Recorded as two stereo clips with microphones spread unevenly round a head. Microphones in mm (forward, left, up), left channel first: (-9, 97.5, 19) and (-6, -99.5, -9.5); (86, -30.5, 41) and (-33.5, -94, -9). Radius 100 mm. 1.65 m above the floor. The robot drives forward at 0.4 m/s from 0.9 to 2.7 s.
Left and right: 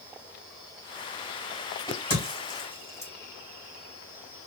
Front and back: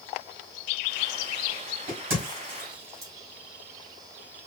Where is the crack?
165° left, 2.5 m.